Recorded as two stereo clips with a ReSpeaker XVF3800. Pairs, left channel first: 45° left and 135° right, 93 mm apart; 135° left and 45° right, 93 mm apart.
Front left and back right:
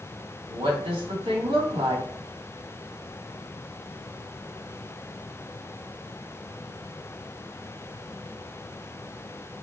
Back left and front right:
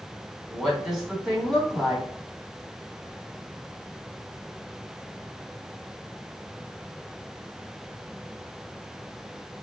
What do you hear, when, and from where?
0.5 s a woman speaking: 135° right, 1.5 m